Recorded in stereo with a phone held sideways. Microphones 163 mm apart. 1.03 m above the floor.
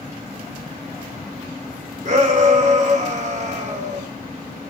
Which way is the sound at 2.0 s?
50° right (ahead or behind).